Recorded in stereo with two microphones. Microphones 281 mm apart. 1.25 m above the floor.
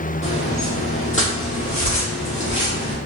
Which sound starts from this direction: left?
Footsteps, at 0.2 s.